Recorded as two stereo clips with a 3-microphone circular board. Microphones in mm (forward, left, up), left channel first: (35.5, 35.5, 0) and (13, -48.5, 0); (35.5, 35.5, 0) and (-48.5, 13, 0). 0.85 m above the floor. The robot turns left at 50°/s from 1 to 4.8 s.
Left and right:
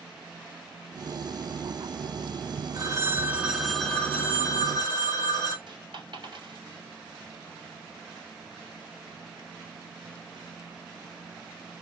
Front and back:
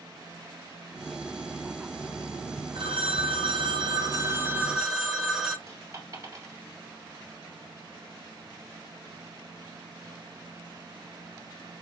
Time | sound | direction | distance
2.8 | a phone ringing | 150° right | 0.8 m
5.7 | a dropped coin | 120° right | 1.5 m